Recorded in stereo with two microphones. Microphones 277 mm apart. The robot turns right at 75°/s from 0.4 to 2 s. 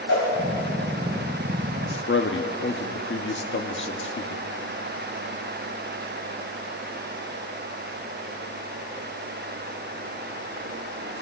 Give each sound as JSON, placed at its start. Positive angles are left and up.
{"t": 0.1, "sound": "a whoosh", "side_deg": 70, "distance_m": 4.5}
{"t": 1.9, "sound": "a man speaking", "side_deg": 45, "distance_m": 1.0}